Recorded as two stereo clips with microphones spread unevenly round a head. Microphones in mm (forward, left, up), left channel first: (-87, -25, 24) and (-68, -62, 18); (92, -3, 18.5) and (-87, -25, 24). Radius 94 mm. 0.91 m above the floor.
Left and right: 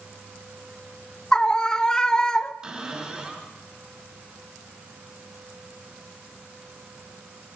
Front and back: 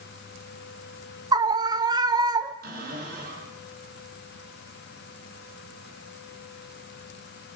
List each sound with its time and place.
1.3 s a scream: 175° right, 0.5 m
2.6 s a cupboard door: 130° right, 4.5 m